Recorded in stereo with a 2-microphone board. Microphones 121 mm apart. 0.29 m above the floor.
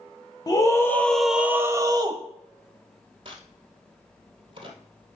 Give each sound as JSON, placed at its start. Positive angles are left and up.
{"t": 0.5, "sound": "a scream", "side_deg": 30, "distance_m": 1.1}
{"t": 3.2, "sound": "a crack", "side_deg": -45, "distance_m": 1.6}